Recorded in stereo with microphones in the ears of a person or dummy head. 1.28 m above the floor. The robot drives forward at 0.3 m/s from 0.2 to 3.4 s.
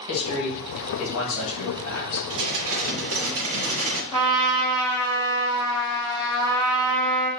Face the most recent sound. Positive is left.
turn(degrees=15)  # may be behind; listen again after turning